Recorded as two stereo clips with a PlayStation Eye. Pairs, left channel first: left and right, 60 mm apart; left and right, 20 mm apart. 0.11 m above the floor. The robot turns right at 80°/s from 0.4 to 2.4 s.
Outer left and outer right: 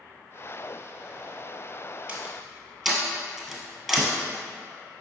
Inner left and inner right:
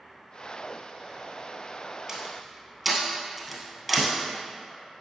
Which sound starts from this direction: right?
A door slam, at 2.1 s.